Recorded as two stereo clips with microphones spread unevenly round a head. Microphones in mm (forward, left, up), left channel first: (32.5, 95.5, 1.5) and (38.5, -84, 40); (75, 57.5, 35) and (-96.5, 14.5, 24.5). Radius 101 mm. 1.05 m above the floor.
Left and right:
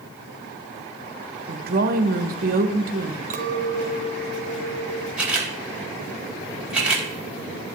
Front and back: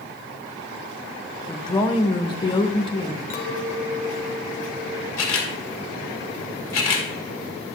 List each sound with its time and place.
1.5 s a woman speaking: 50° right, 1.2 m
3.3 s a clink: 45° right, 1.3 m
5.2 s a camera shutter: 5° right, 2 m